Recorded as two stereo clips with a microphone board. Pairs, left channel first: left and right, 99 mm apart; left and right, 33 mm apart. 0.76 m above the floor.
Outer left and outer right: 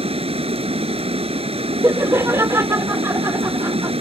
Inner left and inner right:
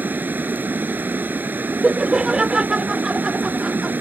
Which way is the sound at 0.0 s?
85° right.